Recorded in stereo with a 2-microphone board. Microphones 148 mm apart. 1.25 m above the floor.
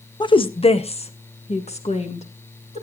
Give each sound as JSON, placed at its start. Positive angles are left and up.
{"t": 0.2, "sound": "a woman speaking", "side_deg": 30, "distance_m": 0.5}